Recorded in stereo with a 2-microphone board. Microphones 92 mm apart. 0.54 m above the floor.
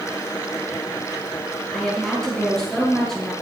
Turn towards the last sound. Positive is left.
turn(degrees=5)  # may be behind; listen again after turning